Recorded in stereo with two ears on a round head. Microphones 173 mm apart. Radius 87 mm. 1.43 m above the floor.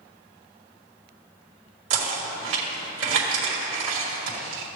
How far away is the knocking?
About 2 m.